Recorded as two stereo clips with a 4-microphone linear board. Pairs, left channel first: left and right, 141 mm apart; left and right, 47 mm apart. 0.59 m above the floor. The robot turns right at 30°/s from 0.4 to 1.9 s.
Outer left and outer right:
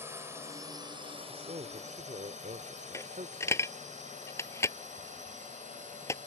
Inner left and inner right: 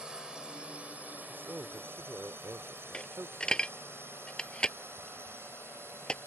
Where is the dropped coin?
20° left (ahead or behind).